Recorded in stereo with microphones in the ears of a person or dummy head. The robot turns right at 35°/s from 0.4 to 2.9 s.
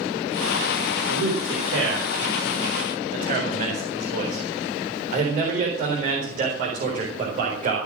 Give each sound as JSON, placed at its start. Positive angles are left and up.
{"t": 1.1, "sound": "a man speaking", "side_deg": -65, "distance_m": 4.0}